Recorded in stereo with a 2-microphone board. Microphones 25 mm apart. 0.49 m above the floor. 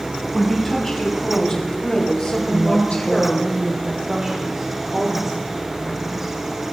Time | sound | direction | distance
0.3 | a woman speaking | 20° left (ahead or behind) | 4 m
2.5 | a woman speaking | 35° right (ahead or behind) | 1.7 m